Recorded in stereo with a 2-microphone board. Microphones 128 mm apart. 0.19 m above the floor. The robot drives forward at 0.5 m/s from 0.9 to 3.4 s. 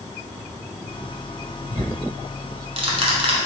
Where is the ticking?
45° right (ahead or behind), 1.0 m.